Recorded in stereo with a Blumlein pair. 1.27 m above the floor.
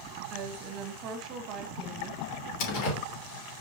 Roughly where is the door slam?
Ahead left.